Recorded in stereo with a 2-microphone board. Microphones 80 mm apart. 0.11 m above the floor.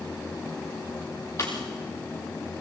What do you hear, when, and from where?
1.4 s a pop: 40° left (ahead or behind), 4 m